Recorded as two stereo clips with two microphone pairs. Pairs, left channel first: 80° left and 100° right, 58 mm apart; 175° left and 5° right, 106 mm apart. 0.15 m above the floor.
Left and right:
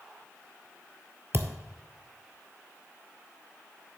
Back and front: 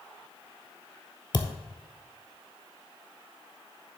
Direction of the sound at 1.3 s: 145° right.